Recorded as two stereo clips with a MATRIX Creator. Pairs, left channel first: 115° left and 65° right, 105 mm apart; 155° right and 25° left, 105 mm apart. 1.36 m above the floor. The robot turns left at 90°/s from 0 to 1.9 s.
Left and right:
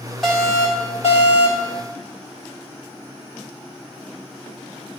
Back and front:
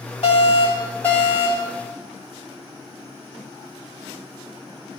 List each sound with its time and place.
0.2 s an alarm: 160° right, 4 m; by 1.7 s 65° left, 4 m